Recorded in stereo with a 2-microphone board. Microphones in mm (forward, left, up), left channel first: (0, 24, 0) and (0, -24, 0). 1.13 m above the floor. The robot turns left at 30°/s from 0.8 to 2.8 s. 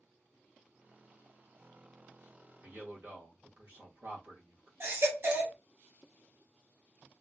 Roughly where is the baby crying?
Right.